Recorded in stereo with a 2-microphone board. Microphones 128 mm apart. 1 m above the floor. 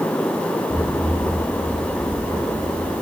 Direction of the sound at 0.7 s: 50° right (ahead or behind).